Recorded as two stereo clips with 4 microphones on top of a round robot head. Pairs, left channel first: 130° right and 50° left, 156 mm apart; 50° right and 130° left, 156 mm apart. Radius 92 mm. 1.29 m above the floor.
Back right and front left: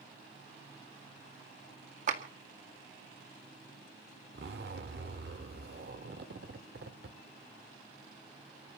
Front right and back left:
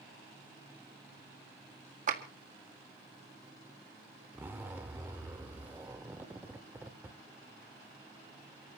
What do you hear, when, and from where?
2.1 s a clap: 90° left, 1.9 m
4.3 s a zipper: 55° left, 1.3 m